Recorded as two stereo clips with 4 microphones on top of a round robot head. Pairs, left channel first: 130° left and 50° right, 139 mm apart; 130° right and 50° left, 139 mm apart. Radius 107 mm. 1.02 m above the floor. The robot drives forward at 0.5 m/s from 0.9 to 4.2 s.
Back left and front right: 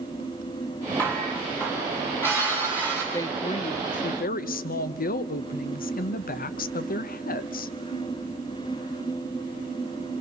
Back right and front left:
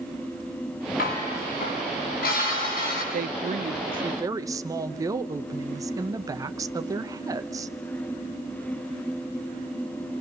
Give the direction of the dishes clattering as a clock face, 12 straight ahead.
5 o'clock.